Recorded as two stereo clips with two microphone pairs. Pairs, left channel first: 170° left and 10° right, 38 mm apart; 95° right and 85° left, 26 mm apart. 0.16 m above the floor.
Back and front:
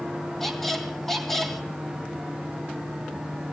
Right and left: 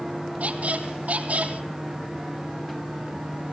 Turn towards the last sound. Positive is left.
turn(degrees=85)